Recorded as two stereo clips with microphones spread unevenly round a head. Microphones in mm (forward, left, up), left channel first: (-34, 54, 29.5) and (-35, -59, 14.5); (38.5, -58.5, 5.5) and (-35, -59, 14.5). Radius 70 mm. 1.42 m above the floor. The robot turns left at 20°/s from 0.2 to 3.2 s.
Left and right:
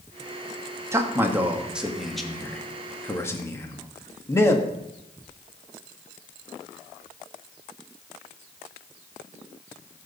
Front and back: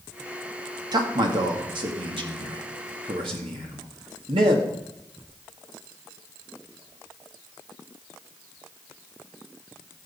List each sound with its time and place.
0.9 s a man speaking: 155° right, 2 m; by 4.7 s 155° left, 2 m